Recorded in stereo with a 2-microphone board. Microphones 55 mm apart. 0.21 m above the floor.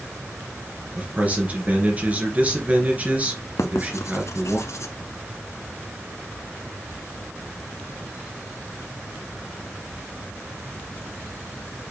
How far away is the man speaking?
About 3 m.